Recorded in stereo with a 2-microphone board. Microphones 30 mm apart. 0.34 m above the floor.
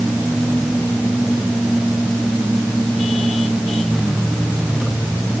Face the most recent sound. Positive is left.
No sound to turn to.